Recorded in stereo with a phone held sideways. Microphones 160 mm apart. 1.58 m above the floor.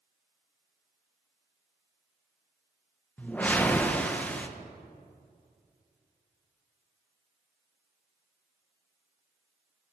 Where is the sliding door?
I don't hear a sliding door.